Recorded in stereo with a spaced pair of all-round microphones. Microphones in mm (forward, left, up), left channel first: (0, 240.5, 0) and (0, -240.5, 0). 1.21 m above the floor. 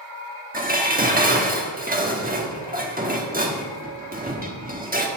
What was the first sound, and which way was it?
Dishes clattering, 15° right (ahead or behind).